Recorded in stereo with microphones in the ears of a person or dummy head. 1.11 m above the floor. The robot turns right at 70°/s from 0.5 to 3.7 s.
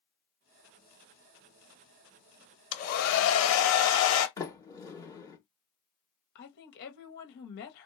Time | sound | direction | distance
2.7 | a hair dryer | 35° left | 0.9 m
4.4 | a sliding door | 15° left (ahead or behind) | 1.6 m
6.3 | a woman speaking | 55° left (ahead or behind) | 1.2 m